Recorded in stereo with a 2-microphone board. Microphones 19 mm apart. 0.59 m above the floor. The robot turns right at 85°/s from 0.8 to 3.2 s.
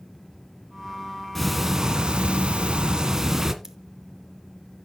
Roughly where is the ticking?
Behind.